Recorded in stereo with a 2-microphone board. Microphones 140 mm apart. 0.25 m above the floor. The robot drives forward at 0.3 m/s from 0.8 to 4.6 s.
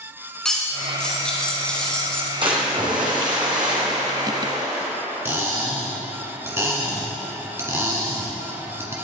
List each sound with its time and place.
0.5 s cutlery clinking: 5° left (ahead or behind), 1.4 m
2.4 s a splash: 35° right (ahead or behind), 1.8 m; by 4.9 s 25° right (ahead or behind), 2.5 m
5.2 s cutlery clinking: 20° right (ahead or behind), 1.5 m